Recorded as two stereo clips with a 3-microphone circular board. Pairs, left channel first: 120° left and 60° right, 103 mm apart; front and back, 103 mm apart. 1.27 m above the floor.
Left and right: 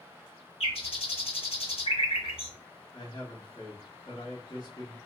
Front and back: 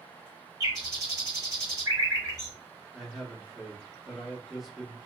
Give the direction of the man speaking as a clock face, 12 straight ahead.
9 o'clock.